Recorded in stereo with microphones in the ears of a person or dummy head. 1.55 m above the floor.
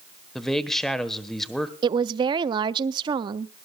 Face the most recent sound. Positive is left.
turn(degrees=-30)  # may be behind; listen again after turning